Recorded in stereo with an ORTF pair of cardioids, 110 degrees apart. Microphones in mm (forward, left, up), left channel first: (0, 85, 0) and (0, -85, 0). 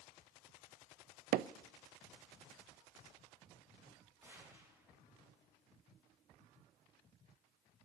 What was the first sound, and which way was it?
Hammering, 65° right.